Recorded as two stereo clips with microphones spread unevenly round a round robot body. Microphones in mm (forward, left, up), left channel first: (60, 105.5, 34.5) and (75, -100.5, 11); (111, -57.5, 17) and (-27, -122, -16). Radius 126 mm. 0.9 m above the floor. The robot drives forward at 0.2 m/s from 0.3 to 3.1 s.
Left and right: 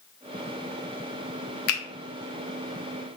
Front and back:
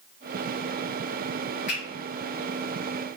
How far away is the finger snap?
About 0.6 m.